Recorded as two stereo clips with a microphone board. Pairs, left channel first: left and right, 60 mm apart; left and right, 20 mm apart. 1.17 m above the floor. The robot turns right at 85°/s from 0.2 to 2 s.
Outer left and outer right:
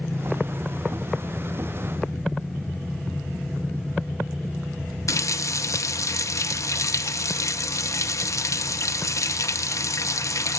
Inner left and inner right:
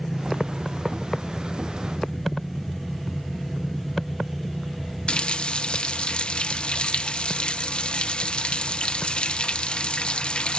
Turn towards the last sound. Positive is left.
turn(degrees=60)  # may be behind; listen again after turning